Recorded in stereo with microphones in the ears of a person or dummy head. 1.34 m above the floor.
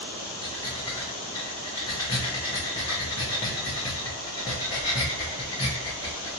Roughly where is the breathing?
Centre.